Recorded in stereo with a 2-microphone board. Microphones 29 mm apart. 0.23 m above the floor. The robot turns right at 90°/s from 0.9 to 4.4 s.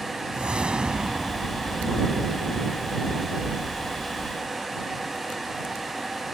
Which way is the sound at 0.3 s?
60° right.